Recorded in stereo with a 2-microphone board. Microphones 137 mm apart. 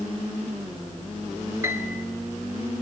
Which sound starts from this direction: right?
A piano, at 1.6 s.